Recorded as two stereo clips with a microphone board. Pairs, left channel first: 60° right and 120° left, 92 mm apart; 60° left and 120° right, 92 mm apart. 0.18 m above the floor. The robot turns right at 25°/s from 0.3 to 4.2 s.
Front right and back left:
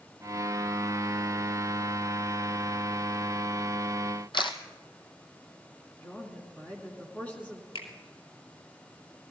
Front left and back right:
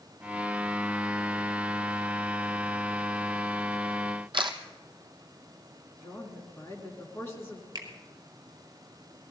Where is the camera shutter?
95° right, 1.0 m.